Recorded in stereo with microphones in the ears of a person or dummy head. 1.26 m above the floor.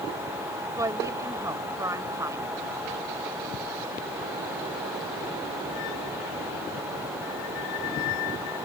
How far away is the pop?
No pop in this recording.